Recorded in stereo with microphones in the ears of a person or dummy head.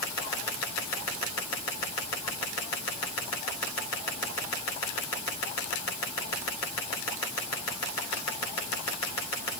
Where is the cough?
No cough in this recording.